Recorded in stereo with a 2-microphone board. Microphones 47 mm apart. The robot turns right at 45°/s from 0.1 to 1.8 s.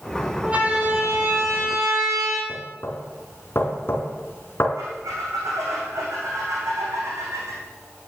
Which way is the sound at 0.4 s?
20° right (ahead or behind).